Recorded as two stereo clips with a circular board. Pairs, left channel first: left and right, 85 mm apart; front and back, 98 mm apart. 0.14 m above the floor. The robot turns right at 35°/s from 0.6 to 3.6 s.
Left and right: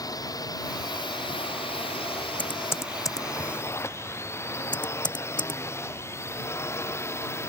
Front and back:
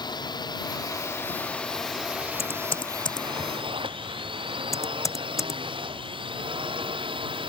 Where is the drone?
45° left; by 7.5 s 150° left.